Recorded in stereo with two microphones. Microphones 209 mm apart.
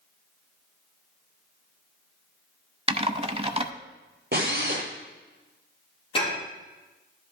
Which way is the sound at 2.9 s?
30° right (ahead or behind).